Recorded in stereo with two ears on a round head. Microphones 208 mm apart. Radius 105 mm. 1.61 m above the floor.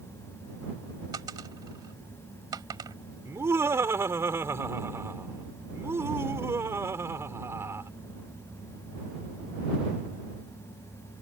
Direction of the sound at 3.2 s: 10° right (ahead or behind).